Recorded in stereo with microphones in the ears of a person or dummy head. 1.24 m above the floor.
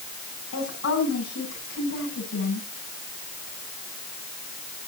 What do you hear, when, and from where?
0.5 s a woman speaking: 80° left, 8.5 m